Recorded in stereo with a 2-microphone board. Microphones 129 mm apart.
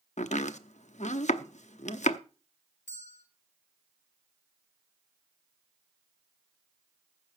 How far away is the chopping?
About 0.7 m.